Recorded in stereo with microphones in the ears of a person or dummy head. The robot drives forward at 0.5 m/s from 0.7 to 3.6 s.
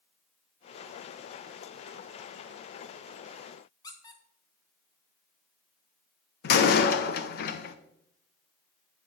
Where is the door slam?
60° left (ahead or behind), 0.8 m.